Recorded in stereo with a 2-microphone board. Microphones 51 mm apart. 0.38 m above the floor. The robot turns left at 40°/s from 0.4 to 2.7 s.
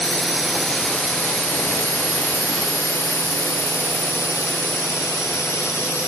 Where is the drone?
Centre (ahead or behind); by 6.1 s 70° left (ahead or behind).